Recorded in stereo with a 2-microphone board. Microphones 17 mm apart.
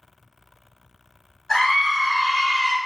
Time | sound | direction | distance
1.5 | a scream | 20° left (ahead or behind) | 1.5 m